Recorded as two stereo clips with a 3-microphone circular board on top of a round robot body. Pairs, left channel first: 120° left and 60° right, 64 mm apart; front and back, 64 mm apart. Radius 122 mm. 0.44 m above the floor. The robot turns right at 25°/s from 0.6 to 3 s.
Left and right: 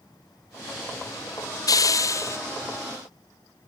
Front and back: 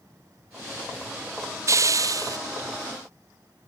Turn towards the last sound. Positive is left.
turn(degrees=175)